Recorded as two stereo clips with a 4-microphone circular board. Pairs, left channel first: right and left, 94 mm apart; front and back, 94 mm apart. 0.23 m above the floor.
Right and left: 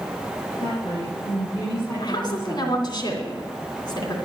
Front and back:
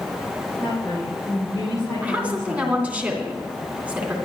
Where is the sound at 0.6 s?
60° right, 7.5 m; by 2.9 s 40° right, 9 m.